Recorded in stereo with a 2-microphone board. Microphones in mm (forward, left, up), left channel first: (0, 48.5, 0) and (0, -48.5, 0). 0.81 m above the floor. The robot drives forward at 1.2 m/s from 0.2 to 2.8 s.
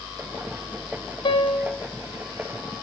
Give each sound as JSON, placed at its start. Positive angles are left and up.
{"t": 1.2, "sound": "a piano", "side_deg": 60, "distance_m": 0.6}